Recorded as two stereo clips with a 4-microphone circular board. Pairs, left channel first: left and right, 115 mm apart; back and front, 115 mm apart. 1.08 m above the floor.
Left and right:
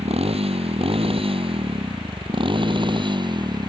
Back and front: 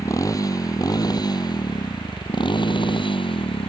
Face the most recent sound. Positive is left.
turn(degrees=-140)